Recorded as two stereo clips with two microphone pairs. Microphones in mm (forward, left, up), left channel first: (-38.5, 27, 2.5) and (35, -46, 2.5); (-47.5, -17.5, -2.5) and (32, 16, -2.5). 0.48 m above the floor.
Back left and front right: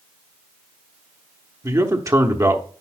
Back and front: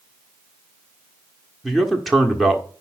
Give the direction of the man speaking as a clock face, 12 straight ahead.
2 o'clock.